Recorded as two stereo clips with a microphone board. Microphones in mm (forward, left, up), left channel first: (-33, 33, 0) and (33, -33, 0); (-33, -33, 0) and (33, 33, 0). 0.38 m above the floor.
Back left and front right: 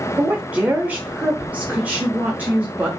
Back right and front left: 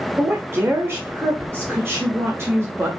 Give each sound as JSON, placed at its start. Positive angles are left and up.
{"t": 0.2, "sound": "a woman speaking", "azimuth_deg": 15, "distance_m": 0.9}